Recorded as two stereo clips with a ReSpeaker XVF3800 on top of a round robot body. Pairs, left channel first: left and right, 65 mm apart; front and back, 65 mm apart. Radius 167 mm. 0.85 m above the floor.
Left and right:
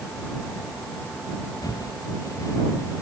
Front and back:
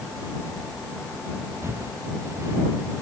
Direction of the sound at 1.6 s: 130° left.